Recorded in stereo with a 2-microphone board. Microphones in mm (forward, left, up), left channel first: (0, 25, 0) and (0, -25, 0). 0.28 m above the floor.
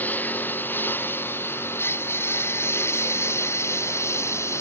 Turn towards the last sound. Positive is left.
turn(degrees=60)  # may be behind; listen again after turning